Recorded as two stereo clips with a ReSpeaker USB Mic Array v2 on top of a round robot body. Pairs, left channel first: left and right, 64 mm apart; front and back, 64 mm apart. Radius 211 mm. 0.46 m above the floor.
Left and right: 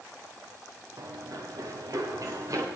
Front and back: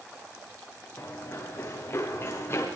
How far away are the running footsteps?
About 4.5 m.